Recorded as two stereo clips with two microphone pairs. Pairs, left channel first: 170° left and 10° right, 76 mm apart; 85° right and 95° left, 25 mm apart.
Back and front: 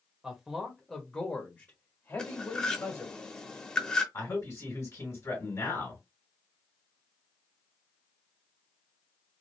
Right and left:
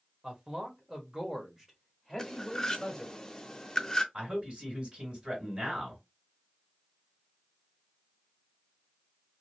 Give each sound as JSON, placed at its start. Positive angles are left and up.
{"t": 0.2, "sound": "a man speaking", "azimuth_deg": 65, "distance_m": 1.2}
{"t": 2.2, "sound": "cutlery clinking", "azimuth_deg": -125, "distance_m": 0.7}
{"t": 4.1, "sound": "a man speaking", "azimuth_deg": 125, "distance_m": 2.0}